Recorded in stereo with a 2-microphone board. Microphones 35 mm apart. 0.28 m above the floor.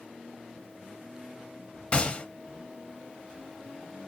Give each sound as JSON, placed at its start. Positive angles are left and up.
{"t": 1.9, "sound": "a gunshot", "side_deg": 30, "distance_m": 0.6}